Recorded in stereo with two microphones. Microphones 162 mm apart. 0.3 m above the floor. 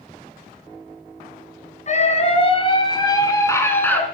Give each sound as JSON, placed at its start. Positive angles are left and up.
{"t": 1.9, "sound": "a scream", "side_deg": 50, "distance_m": 2.0}